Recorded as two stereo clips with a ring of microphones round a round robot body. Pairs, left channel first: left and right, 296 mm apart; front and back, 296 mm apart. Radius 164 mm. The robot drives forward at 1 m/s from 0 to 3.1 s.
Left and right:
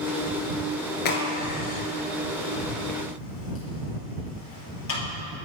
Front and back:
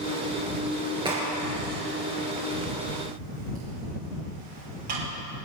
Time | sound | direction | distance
1.1 | a crack | 105° left | 2.5 m